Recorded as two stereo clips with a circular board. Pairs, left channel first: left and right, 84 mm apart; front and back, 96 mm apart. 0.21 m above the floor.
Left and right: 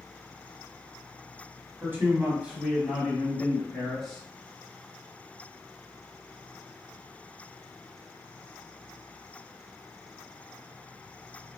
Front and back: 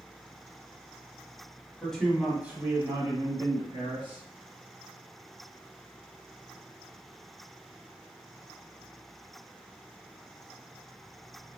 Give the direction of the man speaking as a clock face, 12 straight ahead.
2 o'clock.